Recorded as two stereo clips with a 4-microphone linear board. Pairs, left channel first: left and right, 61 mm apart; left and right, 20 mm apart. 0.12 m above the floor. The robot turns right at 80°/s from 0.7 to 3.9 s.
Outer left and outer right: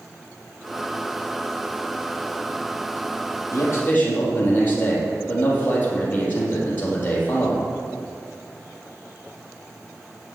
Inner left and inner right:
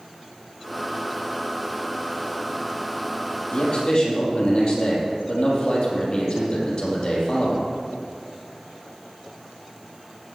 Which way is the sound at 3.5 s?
115° left.